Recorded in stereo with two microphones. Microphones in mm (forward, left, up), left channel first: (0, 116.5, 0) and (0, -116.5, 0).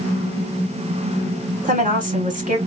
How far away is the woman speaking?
About 2 m.